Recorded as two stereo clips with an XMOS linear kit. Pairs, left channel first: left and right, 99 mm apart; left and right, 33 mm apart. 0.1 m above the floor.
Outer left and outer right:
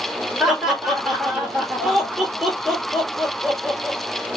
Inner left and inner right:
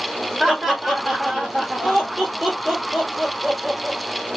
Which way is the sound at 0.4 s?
5° right (ahead or behind).